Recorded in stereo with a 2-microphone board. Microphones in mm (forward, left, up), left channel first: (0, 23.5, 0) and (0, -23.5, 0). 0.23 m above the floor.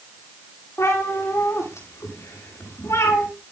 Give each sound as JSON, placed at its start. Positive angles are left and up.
{"t": 0.8, "sound": "a cat meowing", "side_deg": 80, "distance_m": 9.0}